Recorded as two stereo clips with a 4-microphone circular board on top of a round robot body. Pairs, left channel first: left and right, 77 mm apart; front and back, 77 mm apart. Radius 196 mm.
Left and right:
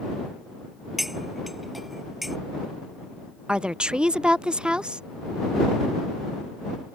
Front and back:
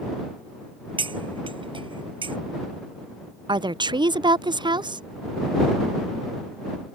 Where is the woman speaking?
170° right.